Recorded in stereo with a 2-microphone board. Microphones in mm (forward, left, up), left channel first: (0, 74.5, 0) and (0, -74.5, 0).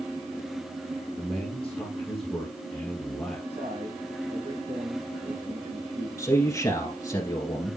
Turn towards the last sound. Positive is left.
turn(degrees=25)  # may be behind; listen again after turning